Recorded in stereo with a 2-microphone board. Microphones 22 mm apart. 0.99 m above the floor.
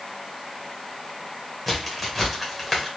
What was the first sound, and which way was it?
A crack, 5° left (ahead or behind).